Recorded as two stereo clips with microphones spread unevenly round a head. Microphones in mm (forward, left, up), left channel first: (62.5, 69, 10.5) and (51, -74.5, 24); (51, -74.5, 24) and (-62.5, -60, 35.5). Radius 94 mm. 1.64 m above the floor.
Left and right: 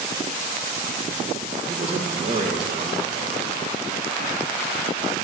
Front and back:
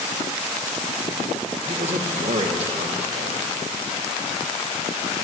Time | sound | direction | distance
1.7 | a man speaking | 155° right | 2 m